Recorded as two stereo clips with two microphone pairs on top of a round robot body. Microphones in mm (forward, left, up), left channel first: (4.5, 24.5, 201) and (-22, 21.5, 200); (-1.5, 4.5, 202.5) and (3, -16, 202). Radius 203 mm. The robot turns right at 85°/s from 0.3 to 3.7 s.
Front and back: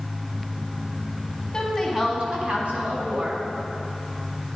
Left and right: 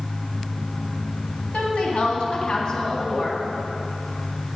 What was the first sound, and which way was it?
A woman speaking, 70° left.